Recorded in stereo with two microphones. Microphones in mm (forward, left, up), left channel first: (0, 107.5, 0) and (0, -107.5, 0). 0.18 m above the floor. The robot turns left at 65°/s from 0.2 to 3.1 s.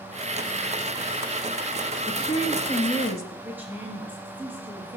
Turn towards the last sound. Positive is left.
turn(degrees=-10)  # may be behind; listen again after turning